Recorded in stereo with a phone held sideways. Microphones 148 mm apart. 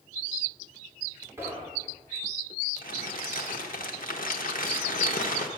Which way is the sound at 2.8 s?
75° left (ahead or behind).